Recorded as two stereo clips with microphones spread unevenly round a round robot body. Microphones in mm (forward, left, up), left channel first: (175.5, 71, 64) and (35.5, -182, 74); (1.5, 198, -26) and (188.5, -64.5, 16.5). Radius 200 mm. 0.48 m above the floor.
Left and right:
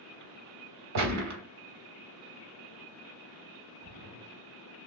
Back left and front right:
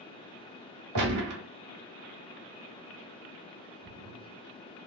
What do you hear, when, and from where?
0.9 s a gunshot: 105° right, 1.3 m
3.8 s a splash: 110° right, 0.9 m